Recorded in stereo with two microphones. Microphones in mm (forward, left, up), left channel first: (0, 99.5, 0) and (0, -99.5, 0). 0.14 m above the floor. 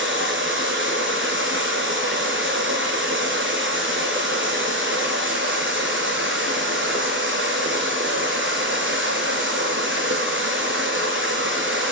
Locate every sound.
0.0 s running water: 75° right (ahead or behind), 3 m